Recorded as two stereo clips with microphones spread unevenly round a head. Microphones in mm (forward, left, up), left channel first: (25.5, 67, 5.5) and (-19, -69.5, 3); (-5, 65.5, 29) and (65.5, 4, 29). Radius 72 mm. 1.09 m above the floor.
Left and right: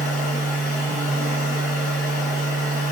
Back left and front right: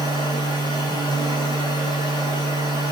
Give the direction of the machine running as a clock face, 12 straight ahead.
9 o'clock.